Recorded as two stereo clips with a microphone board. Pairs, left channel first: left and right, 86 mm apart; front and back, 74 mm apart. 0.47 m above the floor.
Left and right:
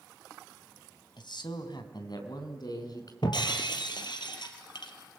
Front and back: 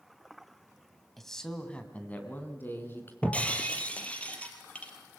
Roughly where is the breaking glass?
Left.